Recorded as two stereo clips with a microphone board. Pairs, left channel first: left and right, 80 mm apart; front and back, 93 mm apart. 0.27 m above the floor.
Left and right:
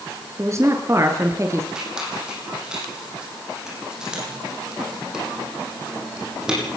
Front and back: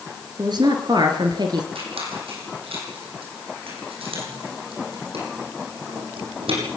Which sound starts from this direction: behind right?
A woman speaking, at 0.4 s.